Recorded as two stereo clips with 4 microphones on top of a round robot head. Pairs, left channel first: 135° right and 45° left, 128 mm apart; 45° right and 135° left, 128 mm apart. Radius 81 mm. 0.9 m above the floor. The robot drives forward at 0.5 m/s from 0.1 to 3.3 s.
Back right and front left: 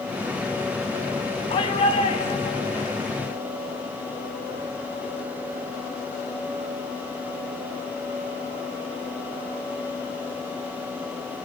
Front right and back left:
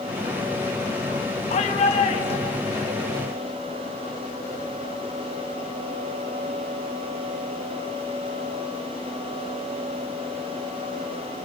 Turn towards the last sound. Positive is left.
turn(degrees=-95)